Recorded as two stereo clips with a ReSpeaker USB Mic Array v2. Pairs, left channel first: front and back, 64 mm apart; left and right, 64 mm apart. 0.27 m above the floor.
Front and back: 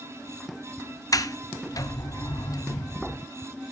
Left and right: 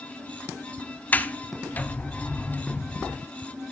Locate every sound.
1.1 s a sliding door: 25° left, 0.7 m